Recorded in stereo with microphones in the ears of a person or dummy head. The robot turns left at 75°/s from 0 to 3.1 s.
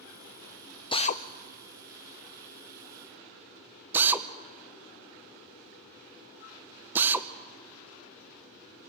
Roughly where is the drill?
Left.